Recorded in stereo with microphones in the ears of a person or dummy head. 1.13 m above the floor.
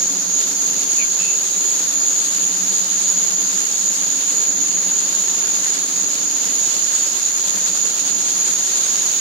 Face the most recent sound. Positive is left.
turn(degrees=-70)  # may be behind; listen again after turning